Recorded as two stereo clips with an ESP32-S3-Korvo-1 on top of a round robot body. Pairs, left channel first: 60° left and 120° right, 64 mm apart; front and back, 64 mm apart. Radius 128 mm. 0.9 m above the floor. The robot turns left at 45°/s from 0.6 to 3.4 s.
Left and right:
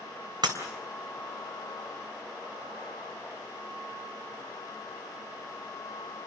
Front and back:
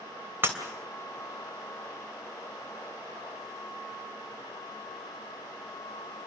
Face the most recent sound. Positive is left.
turn(degrees=110)